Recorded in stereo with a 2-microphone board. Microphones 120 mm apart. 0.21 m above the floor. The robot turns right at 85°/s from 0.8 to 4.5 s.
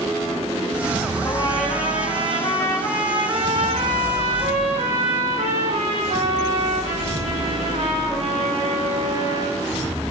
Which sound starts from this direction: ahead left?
A trumpet, at 1.2 s.